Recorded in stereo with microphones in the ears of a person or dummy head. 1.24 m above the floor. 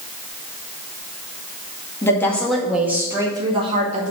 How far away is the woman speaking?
About 2 m.